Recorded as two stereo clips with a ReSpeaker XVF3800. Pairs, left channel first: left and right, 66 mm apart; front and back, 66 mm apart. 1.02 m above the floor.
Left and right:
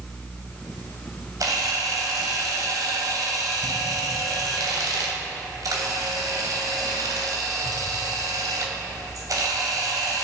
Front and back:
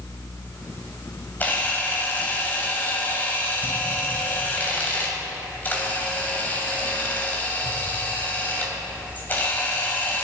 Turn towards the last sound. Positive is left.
turn(degrees=-65)